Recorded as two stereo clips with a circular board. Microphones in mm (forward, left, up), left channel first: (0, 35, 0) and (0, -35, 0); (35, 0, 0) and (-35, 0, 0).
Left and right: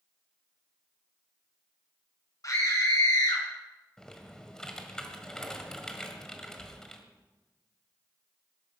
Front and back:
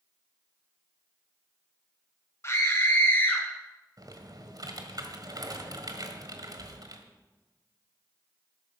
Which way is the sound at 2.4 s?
50° left.